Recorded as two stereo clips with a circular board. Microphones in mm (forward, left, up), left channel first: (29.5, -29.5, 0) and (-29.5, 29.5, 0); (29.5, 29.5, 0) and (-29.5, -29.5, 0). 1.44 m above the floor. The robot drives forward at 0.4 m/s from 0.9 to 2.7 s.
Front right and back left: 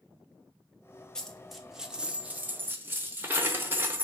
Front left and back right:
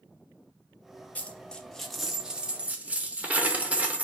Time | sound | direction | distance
1.1 | a dropped coin | 20° left | 0.7 m